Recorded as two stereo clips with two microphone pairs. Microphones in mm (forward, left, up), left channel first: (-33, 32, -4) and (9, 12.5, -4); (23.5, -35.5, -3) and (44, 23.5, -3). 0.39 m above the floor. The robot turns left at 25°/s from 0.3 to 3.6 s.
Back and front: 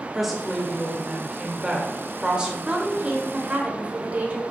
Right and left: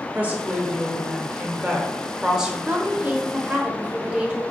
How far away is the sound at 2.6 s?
About 1.0 m.